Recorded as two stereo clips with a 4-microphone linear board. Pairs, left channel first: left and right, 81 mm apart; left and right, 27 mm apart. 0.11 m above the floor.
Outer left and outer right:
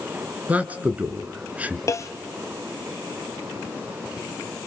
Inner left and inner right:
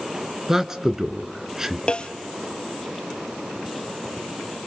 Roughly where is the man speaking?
Centre.